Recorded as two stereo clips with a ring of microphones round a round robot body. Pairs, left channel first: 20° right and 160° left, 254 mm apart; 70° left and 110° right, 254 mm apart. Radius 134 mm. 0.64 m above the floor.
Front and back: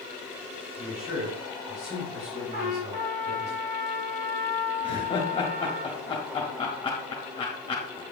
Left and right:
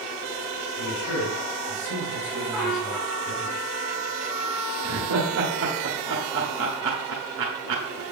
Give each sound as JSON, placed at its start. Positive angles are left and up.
{"t": 0.8, "sound": "a man speaking", "azimuth_deg": 95, "distance_m": 4.5}
{"t": 2.5, "sound": "a trumpet", "azimuth_deg": 160, "distance_m": 4.5}
{"t": 4.8, "sound": "laughter", "azimuth_deg": -90, "distance_m": 1.7}